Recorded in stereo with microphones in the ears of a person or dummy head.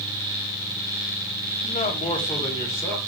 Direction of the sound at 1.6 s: 35° left (ahead or behind).